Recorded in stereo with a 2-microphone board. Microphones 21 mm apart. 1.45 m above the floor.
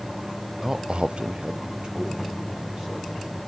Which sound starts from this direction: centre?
A man speaking, at 0.6 s.